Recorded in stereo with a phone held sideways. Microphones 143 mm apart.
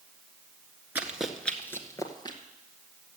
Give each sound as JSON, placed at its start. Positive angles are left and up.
{"t": 0.9, "sound": "running footsteps", "side_deg": -10, "distance_m": 1.5}